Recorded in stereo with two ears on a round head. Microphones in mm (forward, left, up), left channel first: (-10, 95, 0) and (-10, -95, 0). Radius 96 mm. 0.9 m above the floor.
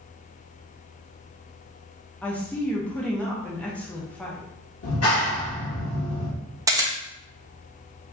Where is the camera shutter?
15° right (ahead or behind), 0.8 m.